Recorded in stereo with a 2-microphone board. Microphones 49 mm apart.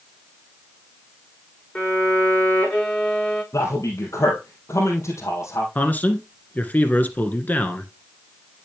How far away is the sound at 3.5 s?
About 3 m.